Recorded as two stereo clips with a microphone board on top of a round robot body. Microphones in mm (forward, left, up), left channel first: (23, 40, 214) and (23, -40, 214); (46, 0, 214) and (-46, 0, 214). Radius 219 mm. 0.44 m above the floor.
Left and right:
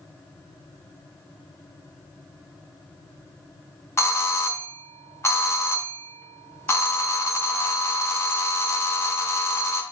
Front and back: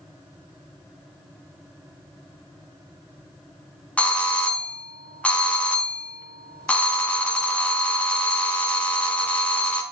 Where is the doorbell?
65° left, 1.6 m.